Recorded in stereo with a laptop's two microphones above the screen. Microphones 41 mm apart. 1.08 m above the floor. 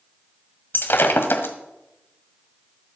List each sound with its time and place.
0.7 s breaking glass: 60° left (ahead or behind), 1.6 m